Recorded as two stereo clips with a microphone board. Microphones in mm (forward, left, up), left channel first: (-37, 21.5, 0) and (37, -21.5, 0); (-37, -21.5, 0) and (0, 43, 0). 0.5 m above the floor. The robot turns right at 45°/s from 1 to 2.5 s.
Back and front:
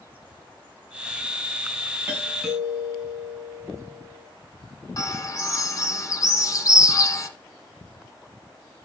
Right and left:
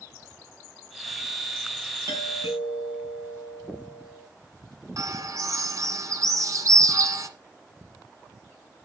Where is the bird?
100° left, 1.5 m.